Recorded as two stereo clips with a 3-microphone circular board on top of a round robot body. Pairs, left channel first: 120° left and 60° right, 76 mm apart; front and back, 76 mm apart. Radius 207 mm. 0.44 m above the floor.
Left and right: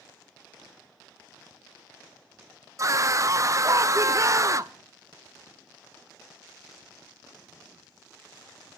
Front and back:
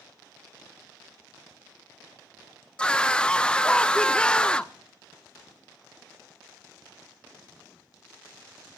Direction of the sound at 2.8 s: 75° right.